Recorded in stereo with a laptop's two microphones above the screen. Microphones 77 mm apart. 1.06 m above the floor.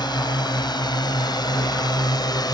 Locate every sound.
0.0 s a drone: 80° left; by 2.5 s 70° left (ahead or behind)